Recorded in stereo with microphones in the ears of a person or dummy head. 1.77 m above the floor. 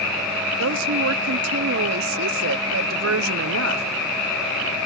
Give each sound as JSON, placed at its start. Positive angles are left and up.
{"t": 0.6, "sound": "a woman speaking", "side_deg": -85}